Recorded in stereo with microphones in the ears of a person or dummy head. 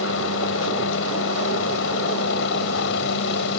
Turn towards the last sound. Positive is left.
turn(degrees=70)  # may be behind; listen again after turning